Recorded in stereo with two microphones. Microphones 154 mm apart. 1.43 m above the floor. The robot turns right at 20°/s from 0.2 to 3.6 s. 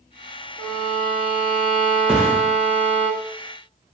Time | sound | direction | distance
0.6 | a violin | 110° right | 0.8 m
2.1 | a thud | 5° right (ahead or behind) | 0.7 m